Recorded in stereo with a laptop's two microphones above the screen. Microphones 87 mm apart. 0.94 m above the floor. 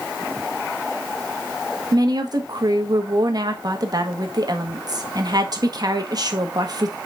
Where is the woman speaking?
50° right (ahead or behind), 1.5 m.